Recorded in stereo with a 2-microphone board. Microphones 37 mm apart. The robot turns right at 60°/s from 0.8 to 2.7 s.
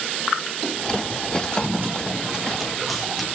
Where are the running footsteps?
75° right (ahead or behind), 4 m; by 3.3 s 5° left (ahead or behind), 4 m.